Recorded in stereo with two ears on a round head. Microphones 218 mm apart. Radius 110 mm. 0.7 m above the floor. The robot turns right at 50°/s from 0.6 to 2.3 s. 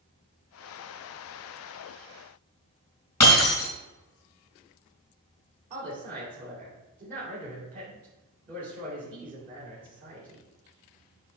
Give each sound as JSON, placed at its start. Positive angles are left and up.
{"t": 3.2, "sound": "breaking glass", "side_deg": 15, "distance_m": 3.5}
{"t": 5.7, "sound": "a woman speaking", "side_deg": -35, "distance_m": 2.5}